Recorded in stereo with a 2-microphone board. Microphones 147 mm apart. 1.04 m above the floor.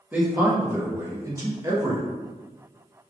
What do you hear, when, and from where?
0.1 s a man speaking: 10° right (ahead or behind), 1.0 m; by 2.0 s 25° right (ahead or behind), 0.9 m